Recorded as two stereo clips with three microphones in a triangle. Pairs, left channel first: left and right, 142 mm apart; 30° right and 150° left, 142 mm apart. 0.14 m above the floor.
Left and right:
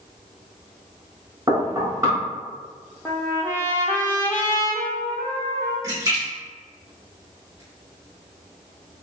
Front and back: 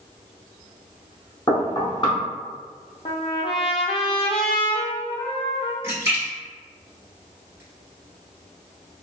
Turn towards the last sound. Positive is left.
turn(degrees=-145)